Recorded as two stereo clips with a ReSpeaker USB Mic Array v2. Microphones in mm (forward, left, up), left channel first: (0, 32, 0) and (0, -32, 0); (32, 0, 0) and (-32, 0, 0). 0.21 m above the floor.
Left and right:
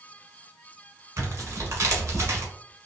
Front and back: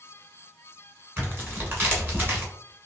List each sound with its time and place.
1.2 s tearing paper: 130° right, 1.3 m